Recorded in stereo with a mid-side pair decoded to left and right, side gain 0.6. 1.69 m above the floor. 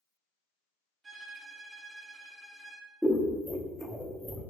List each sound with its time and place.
1.0 s a violin: 25° right, 0.7 m
3.0 s scissors: 5° right, 0.6 m